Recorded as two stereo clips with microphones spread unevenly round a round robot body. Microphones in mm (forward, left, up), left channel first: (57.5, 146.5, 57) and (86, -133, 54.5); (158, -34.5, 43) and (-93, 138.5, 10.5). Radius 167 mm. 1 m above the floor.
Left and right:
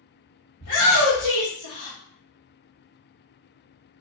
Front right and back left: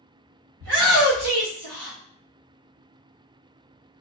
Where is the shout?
145° left, 1.8 m; by 2.0 s 110° left, 1.1 m.